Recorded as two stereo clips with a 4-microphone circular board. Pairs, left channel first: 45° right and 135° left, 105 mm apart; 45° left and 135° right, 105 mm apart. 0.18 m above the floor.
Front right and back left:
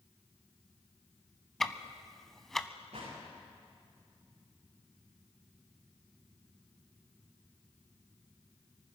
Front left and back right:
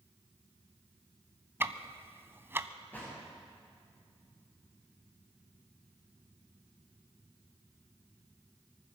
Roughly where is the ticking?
Behind right.